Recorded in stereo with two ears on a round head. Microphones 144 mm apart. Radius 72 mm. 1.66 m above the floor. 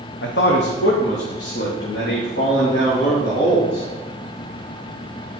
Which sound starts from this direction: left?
A man speaking, at 0.2 s.